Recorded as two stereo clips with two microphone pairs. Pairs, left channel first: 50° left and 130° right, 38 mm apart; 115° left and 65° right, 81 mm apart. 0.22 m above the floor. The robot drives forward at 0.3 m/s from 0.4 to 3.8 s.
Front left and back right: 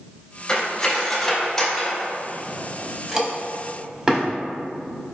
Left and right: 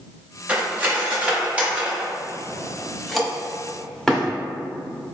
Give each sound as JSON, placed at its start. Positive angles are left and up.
{"t": 0.5, "sound": "cutlery clinking", "azimuth_deg": -5, "distance_m": 1.0}